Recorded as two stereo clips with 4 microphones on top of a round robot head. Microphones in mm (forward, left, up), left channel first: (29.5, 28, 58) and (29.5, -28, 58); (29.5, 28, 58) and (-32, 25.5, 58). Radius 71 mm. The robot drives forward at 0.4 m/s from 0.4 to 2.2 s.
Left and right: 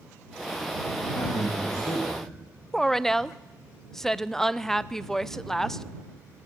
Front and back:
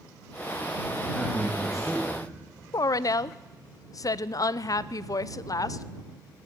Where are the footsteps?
No footsteps in this recording.